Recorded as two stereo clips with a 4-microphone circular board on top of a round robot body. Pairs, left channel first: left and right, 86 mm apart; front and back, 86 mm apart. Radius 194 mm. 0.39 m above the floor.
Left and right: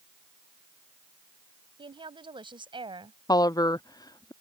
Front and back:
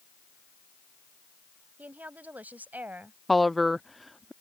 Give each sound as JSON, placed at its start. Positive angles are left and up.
{"t": 1.8, "sound": "a woman speaking", "azimuth_deg": -110}
{"t": 3.3, "sound": "a woman speaking", "azimuth_deg": 90}